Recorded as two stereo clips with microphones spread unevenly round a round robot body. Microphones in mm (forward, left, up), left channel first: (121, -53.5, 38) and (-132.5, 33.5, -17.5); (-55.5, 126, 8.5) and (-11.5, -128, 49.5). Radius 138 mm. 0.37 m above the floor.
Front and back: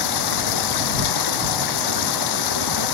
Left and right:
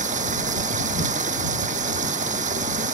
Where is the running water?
15° right.